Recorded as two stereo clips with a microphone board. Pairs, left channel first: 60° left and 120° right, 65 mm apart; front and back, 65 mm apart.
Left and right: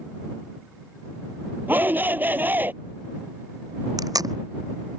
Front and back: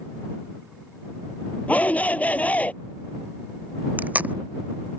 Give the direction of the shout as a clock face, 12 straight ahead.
2 o'clock.